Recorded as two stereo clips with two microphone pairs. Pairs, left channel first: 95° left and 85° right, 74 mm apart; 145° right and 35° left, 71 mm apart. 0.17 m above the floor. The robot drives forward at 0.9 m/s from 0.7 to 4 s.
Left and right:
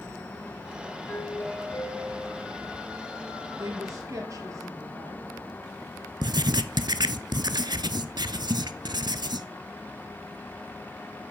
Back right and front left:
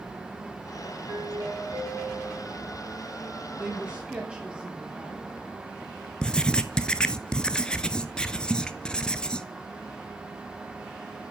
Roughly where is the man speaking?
Ahead right.